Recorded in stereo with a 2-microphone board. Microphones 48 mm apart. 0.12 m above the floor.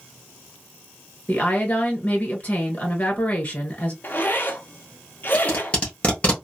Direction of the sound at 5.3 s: 25° left (ahead or behind).